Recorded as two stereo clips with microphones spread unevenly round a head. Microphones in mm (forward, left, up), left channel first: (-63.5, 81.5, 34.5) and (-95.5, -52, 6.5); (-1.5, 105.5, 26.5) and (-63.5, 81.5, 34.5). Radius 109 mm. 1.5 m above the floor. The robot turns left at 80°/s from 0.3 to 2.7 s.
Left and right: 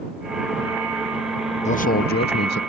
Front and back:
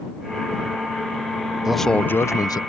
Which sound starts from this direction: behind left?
A man speaking, at 1.6 s.